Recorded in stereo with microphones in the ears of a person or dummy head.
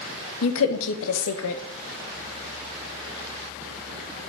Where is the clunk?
I don't hear a clunk.